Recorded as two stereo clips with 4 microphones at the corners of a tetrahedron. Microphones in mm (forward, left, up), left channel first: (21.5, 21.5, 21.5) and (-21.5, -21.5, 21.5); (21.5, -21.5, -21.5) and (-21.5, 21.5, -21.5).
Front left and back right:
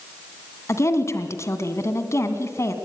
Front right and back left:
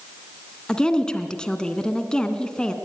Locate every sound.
0.7 s a woman speaking: 25° left, 2 m